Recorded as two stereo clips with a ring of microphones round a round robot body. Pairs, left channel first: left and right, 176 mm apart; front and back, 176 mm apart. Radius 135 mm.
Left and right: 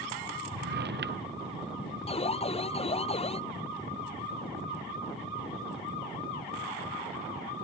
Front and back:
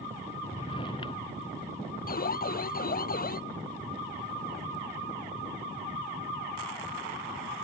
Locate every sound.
0.5 s a drawer: 70° right
2.1 s an alarm: 35° left